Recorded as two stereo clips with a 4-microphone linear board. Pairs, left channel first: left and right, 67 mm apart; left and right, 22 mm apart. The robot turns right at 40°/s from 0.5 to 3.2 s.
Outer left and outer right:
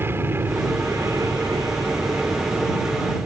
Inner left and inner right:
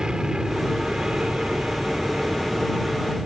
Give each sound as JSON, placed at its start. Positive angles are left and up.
{"t": 0.0, "sound": "an aircraft", "azimuth_deg": -140}